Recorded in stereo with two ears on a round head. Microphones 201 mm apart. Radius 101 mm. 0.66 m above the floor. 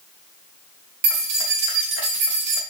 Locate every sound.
1.0 s keys jangling: 75° right (ahead or behind), 2.5 m